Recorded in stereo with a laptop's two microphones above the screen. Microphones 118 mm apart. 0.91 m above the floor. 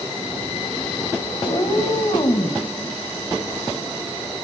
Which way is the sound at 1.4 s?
45° left (ahead or behind).